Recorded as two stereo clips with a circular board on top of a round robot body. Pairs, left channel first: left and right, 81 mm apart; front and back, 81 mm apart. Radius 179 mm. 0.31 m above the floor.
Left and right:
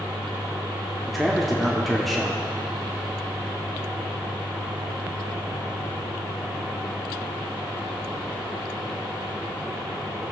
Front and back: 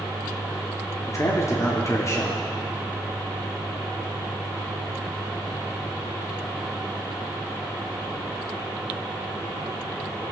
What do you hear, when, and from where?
1.1 s a man speaking: straight ahead, 1.3 m